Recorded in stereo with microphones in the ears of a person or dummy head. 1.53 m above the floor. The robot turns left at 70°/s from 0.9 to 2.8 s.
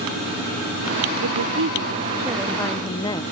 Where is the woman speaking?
90° right; by 3.2 s 160° left.